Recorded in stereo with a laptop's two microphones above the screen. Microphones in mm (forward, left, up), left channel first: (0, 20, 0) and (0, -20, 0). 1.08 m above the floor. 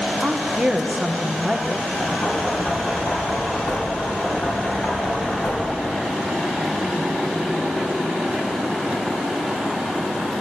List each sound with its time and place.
0.2 s a woman speaking: 20° right (ahead or behind), 0.8 m
2.0 s knocking: 55° left (ahead or behind), 5.5 m